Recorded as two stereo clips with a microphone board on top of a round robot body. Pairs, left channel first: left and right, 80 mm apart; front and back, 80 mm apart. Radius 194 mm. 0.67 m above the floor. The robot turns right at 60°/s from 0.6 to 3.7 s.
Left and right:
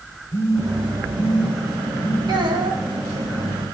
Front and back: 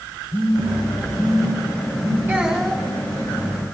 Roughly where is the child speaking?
Behind right.